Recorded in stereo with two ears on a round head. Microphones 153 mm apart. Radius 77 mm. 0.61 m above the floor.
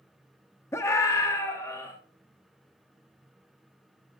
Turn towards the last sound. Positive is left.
turn(degrees=20)  # may be behind; listen again after turning